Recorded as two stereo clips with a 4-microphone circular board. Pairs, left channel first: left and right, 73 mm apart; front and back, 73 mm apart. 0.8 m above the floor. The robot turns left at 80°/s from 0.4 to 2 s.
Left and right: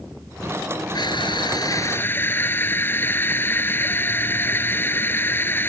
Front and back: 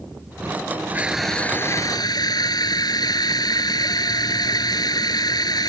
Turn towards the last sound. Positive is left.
turn(degrees=25)